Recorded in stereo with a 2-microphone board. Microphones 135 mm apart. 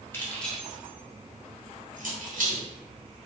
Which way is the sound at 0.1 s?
15° left (ahead or behind).